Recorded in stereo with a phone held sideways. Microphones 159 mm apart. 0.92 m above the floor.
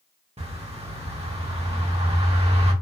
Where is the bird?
40° right (ahead or behind), 1.2 m.